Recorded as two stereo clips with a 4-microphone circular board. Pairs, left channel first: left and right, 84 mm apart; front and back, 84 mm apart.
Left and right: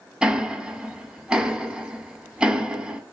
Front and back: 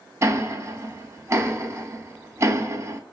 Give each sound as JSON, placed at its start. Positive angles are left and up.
{"t": 0.2, "sound": "ticking", "azimuth_deg": -160, "distance_m": 0.5}